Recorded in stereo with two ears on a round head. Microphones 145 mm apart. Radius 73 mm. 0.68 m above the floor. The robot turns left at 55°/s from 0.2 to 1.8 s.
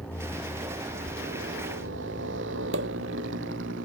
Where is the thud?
20° right (ahead or behind); by 1.2 s 10° right (ahead or behind).